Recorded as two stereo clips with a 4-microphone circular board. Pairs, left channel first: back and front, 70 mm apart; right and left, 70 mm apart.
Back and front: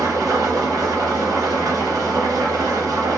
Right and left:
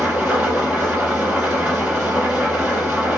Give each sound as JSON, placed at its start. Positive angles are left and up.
{"t": 0.0, "sound": "an engine running", "azimuth_deg": 20, "distance_m": 2.0}